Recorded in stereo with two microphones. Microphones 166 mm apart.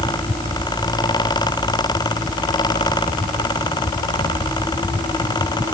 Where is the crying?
I don't hear crying.